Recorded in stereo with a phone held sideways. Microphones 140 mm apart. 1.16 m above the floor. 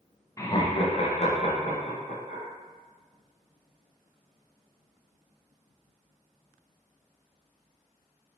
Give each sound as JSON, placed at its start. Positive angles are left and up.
{"t": 0.4, "sound": "laughter", "side_deg": 20, "distance_m": 0.6}